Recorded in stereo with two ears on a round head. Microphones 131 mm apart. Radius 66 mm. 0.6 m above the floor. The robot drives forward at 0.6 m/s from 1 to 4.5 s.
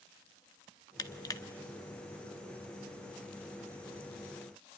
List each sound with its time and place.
1.0 s crushing: 25° left (ahead or behind), 1.2 m